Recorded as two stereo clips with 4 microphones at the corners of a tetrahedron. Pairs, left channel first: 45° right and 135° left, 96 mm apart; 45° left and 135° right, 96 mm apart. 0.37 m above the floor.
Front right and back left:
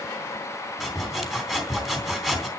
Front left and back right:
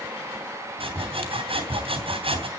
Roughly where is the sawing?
Behind right.